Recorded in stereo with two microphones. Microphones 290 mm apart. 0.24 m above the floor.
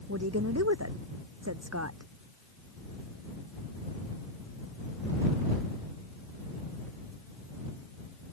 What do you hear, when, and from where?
0.1 s a woman speaking: 55° right (ahead or behind); by 2.1 s 60° right (ahead or behind)